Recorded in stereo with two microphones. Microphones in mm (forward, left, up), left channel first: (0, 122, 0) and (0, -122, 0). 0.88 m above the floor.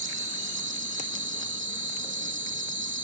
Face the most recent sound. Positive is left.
turn(degrees=-50)  # may be behind; listen again after turning